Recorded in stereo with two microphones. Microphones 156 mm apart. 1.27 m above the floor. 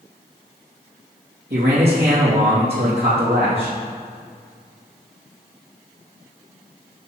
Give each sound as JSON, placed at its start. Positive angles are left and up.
{"t": 1.5, "sound": "a man speaking", "side_deg": -75, "distance_m": 2.5}